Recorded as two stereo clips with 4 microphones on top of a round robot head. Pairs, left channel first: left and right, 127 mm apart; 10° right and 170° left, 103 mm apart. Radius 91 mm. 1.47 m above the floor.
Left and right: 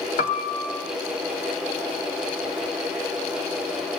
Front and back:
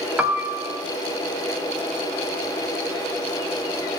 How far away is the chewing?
I don't hear chewing.